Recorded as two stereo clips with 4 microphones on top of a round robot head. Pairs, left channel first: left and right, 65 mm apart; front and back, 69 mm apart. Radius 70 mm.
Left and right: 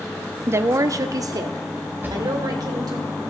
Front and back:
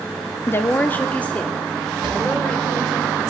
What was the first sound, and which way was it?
A woman speaking, 45° right.